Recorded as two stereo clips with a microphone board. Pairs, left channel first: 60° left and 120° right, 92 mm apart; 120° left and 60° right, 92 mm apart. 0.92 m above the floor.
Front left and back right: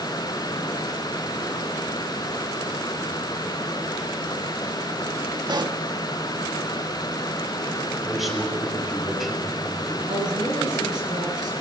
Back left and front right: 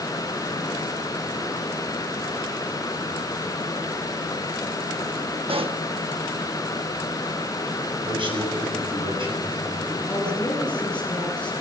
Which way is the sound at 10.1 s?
160° right.